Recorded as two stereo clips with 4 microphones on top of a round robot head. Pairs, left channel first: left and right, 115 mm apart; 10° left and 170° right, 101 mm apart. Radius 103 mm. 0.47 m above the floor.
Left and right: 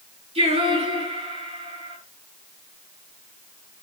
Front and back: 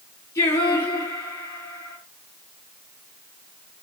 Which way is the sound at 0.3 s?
55° right.